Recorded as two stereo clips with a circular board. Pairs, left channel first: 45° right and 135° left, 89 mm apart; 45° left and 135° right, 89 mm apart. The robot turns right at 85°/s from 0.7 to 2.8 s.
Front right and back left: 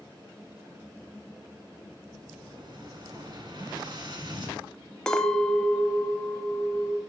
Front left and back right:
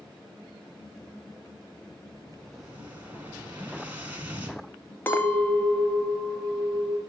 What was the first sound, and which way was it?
An explosion, 95° left.